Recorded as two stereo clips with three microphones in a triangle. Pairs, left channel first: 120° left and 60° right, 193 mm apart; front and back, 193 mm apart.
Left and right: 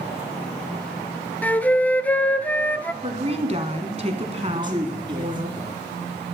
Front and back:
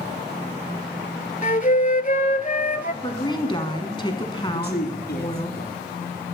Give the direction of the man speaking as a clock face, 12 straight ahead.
12 o'clock.